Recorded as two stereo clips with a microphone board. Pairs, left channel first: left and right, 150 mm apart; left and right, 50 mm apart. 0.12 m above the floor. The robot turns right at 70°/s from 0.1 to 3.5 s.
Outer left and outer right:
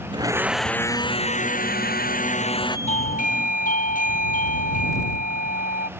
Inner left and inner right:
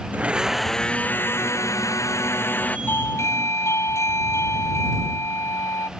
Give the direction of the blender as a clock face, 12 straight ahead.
1 o'clock.